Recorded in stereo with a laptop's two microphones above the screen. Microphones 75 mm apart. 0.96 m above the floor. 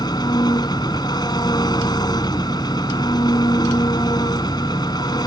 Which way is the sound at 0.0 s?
70° left (ahead or behind).